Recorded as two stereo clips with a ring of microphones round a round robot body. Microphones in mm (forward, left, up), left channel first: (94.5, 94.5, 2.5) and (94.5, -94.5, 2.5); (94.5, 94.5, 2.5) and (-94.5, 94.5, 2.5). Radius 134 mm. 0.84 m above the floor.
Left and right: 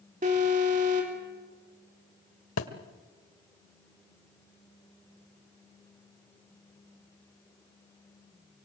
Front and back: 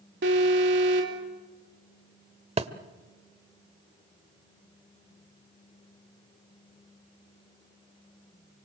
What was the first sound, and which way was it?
An alarm, 150° right.